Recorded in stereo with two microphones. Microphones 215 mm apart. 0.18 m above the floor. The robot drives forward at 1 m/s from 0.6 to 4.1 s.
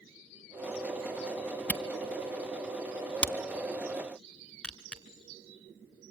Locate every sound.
1.7 s a camera shutter: 5° left (ahead or behind), 1.4 m